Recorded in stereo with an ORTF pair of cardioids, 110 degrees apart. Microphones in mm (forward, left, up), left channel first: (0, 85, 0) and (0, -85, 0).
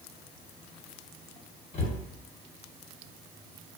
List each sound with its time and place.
1.7 s a cupboard door: 40° left, 1.2 m